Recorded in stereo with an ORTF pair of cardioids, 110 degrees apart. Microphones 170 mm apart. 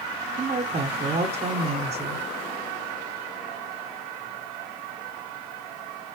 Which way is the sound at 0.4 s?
40° right.